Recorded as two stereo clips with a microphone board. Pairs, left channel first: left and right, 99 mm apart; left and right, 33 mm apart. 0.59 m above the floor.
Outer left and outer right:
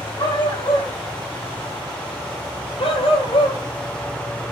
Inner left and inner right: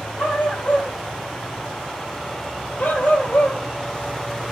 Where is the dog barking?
50° left (ahead or behind), 6 m; by 3.6 s 80° left, 2.5 m.